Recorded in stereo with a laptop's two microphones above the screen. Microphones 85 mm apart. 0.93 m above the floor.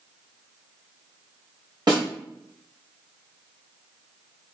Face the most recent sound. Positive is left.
turn(degrees=-55)  # may be behind; listen again after turning